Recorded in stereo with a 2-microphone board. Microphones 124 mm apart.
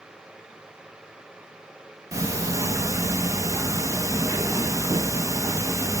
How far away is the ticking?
About 0.6 m.